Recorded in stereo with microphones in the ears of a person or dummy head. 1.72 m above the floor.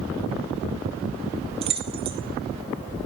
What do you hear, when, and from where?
1.6 s keys jangling: 30° right (ahead or behind), 1.0 m